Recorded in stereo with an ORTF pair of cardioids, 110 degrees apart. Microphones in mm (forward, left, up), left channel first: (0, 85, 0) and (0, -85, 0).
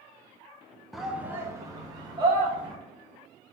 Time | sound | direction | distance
0.9 | a shout | straight ahead | 0.7 m